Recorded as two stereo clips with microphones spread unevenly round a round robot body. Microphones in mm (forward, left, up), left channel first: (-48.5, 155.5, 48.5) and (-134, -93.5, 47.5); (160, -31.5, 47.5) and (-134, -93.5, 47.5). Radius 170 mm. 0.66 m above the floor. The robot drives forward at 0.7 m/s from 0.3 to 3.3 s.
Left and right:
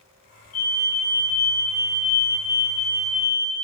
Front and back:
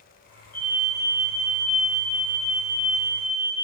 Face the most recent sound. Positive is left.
turn(degrees=110)